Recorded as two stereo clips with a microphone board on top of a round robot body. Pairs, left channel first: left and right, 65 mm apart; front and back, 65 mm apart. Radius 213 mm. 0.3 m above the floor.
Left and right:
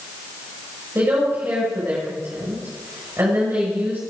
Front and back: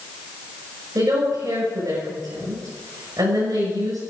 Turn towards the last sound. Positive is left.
turn(degrees=-150)